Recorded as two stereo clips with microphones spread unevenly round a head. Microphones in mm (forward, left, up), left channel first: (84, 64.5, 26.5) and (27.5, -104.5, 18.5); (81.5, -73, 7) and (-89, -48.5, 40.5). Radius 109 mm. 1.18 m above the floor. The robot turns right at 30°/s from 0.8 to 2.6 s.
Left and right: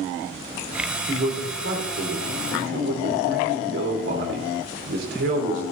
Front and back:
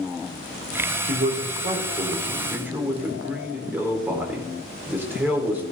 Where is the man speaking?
155° right, 4.5 m; by 5.6 s 105° right, 4.5 m.